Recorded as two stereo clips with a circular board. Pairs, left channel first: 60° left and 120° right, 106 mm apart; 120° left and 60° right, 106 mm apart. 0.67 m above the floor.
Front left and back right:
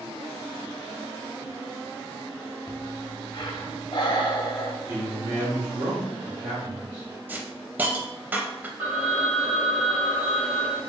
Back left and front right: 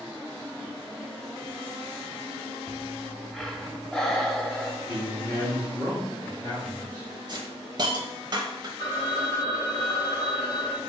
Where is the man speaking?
175° right, 1.4 m.